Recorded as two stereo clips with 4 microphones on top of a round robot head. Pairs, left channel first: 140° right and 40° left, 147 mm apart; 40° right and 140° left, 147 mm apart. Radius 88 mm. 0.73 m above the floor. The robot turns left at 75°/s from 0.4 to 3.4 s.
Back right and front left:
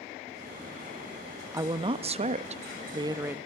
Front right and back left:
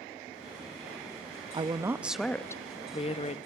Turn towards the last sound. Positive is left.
turn(degrees=-40)